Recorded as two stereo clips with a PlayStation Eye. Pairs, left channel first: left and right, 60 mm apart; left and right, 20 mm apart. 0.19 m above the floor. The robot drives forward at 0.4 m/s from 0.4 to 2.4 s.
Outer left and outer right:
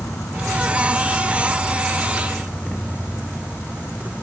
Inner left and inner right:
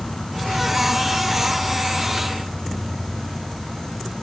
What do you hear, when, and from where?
0.0 s an insect: 65° left (ahead or behind), 0.8 m; by 4.2 s 40° left (ahead or behind), 1.1 m